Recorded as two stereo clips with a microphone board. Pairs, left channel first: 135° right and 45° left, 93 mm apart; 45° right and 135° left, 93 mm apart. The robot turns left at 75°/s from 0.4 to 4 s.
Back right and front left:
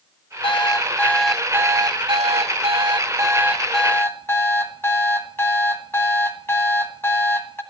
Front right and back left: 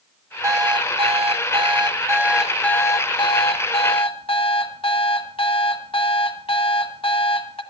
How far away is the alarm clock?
About 1.2 m.